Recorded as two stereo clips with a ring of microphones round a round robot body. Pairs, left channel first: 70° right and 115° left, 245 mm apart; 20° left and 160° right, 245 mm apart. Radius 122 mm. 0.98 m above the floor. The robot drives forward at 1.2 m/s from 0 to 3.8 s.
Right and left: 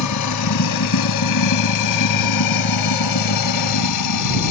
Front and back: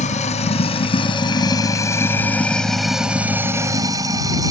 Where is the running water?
40° right; by 4.5 s 80° right.